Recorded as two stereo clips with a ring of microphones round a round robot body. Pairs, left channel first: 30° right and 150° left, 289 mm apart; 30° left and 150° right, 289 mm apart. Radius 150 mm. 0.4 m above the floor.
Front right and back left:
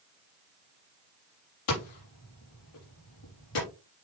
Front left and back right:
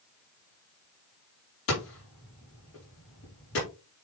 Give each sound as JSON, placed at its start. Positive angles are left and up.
{"t": 1.7, "sound": "hammering", "azimuth_deg": -15, "distance_m": 6.0}